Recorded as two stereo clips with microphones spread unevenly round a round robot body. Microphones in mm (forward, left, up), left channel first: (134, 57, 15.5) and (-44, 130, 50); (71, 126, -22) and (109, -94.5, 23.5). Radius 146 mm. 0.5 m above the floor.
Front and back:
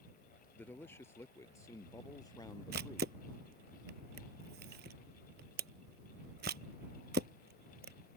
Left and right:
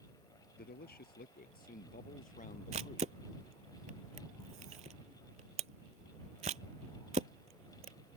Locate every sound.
0.5 s a man speaking: 60° left; by 3.1 s 45° left
2.7 s a camera shutter: 145° right